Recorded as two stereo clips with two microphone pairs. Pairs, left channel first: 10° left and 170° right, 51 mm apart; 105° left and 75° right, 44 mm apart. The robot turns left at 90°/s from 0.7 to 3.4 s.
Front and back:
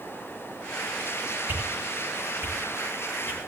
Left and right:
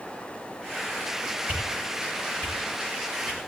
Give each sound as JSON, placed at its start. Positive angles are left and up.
{"t": 1.5, "sound": "a whoosh", "azimuth_deg": -125, "distance_m": 8.0}